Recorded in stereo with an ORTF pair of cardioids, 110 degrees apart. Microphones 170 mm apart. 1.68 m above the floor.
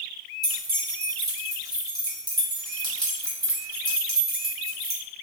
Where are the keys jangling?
25° right, 1.8 m.